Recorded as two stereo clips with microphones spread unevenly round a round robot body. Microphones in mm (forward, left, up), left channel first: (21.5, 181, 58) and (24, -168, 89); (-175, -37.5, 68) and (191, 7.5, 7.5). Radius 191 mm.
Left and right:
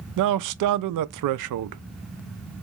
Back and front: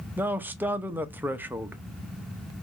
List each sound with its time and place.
0.2 s a man speaking: 70° right, 0.5 m